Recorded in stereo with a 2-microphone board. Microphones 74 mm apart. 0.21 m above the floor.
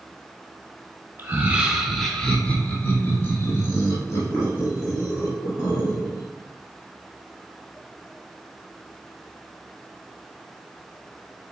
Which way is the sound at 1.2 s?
25° right (ahead or behind).